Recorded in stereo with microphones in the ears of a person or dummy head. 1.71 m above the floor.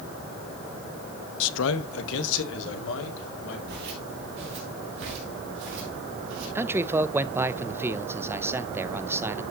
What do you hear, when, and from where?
1.4 s a man speaking: 80° left, 0.8 m; by 3.6 s 75° left (ahead or behind), 3.5 m
3.7 s footsteps: 55° right (ahead or behind), 2.5 m; by 6.5 s 70° right (ahead or behind), 4.5 m
6.5 s a man speaking: 15° right (ahead or behind), 0.6 m